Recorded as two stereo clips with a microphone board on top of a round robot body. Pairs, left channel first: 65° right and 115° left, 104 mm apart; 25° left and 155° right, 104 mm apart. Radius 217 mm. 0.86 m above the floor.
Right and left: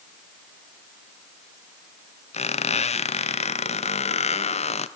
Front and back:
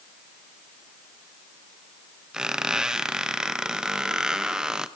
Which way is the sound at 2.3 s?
75° right.